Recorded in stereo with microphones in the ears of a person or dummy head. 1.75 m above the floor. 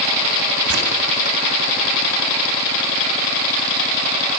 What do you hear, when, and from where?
0.7 s tearing paper: 65° right (ahead or behind), 4 m